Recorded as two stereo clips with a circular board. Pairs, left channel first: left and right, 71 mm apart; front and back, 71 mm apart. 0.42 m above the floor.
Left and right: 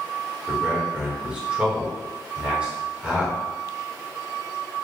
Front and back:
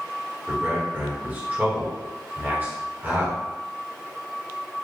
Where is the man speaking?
145° right, 1.4 m.